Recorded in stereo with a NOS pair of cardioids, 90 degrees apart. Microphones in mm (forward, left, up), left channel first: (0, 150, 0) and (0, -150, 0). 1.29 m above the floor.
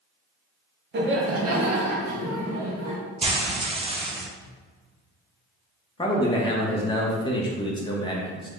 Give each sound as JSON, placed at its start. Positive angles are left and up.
{"t": 0.9, "sound": "laughter", "azimuth_deg": -35, "distance_m": 1.0}
{"t": 3.2, "sound": "frying", "azimuth_deg": -20, "distance_m": 0.7}
{"t": 6.0, "sound": "a man speaking", "azimuth_deg": 15, "distance_m": 0.8}